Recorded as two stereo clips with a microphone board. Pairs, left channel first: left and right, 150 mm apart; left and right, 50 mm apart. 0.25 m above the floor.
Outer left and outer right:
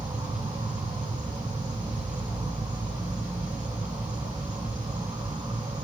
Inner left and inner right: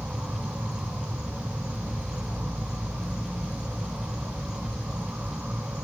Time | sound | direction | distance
0.0 | an insect | 25° right (ahead or behind) | 1.1 m